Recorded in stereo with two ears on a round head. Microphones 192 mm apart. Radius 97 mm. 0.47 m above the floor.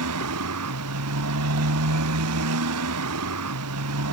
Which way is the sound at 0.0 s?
70° right (ahead or behind).